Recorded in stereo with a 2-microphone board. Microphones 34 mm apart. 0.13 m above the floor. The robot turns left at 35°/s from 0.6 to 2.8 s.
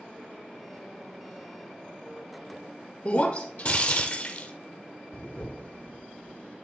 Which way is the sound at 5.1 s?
55° left (ahead or behind).